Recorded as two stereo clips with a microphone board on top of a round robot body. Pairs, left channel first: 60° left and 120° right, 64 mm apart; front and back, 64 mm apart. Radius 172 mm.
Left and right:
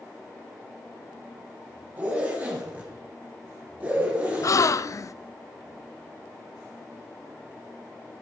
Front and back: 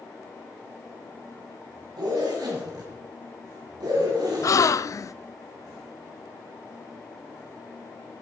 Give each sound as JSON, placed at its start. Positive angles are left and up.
{"t": 2.0, "sound": "a zipper", "azimuth_deg": 170, "distance_m": 3.5}
{"t": 4.4, "sound": "a gasp", "azimuth_deg": 30, "distance_m": 0.6}